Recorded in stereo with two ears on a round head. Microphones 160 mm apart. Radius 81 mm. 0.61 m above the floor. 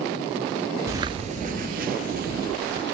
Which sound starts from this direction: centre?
Footsteps, at 0.9 s.